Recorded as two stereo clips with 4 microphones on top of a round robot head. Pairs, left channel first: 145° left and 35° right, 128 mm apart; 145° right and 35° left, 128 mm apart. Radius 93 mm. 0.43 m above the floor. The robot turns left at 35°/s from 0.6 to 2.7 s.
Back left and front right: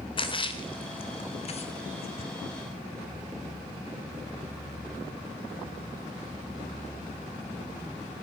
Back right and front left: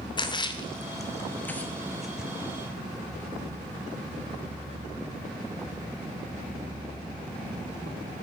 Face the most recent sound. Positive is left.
turn(degrees=105)